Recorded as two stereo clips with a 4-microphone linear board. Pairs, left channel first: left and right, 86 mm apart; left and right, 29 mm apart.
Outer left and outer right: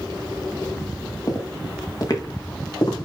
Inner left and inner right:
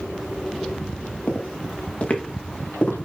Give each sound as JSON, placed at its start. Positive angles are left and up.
{"t": 1.3, "sound": "footsteps", "side_deg": 40, "distance_m": 2.5}